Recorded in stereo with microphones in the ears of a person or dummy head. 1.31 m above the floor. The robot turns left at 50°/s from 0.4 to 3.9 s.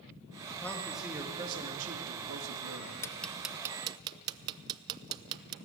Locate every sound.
0.6 s a man speaking: 15° left, 2.5 m; by 2.9 s 105° right, 2.5 m
3.0 s ticking: 15° left (ahead or behind), 0.6 m; by 5.5 s 25° right (ahead or behind), 0.6 m